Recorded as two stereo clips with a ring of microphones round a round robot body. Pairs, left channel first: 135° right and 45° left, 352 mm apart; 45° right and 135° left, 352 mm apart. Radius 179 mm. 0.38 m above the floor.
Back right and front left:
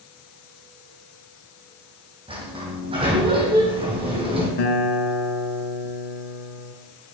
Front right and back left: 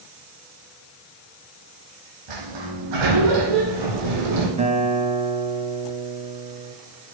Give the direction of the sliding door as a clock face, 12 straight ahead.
8 o'clock.